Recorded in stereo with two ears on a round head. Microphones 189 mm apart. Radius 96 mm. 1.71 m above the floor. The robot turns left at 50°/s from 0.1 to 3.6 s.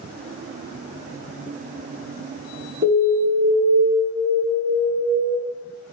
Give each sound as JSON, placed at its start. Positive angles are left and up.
{"t": 2.8, "sound": "an alarm", "azimuth_deg": -135, "distance_m": 1.5}